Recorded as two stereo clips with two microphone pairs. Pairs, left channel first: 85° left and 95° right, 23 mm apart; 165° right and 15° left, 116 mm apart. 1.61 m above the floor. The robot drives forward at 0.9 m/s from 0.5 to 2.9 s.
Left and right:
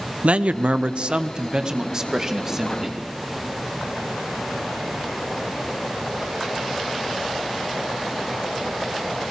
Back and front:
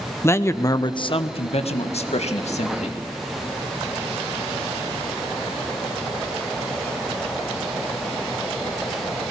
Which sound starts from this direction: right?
A man speaking, at 0.2 s.